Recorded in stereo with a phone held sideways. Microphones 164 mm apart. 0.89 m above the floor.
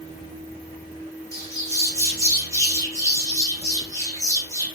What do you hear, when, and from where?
1.3 s a bird: 20° left (ahead or behind), 0.8 m